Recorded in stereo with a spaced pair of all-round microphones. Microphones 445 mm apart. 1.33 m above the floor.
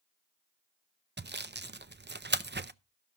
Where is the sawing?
25° right (ahead or behind), 0.5 m.